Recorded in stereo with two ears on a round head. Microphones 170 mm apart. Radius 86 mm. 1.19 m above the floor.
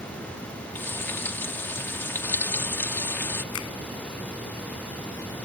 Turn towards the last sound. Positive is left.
turn(degrees=85)